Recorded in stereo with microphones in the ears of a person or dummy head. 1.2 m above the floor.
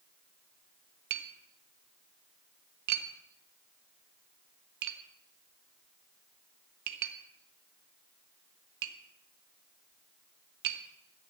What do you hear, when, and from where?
1.1 s tapping: 55° right (ahead or behind), 1.5 m